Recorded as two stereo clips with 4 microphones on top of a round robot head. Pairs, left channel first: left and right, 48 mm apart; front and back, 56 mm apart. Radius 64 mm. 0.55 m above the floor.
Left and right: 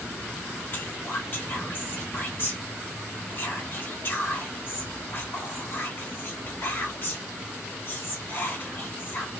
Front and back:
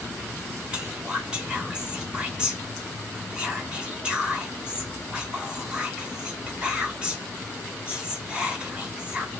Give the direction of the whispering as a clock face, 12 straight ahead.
8 o'clock.